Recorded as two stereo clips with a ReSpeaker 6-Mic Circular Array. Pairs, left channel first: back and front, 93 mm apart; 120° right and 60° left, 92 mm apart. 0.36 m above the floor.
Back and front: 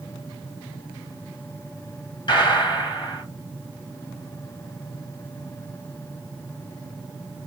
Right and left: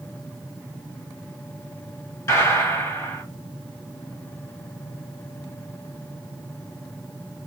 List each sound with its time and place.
2.3 s a gunshot: 175° right, 1.3 m